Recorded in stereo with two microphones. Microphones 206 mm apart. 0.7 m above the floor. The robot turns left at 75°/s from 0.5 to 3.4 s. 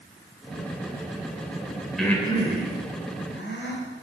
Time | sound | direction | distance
2.0 | breathing | centre (ahead or behind) | 3.5 m